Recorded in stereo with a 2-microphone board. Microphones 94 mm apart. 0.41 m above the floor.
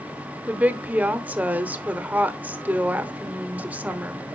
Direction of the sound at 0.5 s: 15° right (ahead or behind).